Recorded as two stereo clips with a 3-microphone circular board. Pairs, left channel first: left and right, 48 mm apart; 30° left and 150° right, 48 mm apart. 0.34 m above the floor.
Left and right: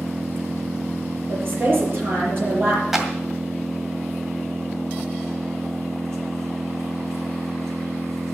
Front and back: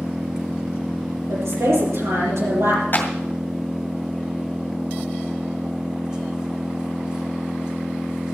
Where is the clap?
10° right, 2 m.